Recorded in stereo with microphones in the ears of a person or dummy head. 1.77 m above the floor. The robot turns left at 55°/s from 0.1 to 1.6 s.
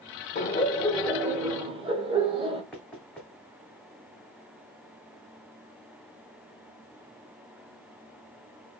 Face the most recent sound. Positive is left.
turn(degrees=5)  # may be behind; listen again after turning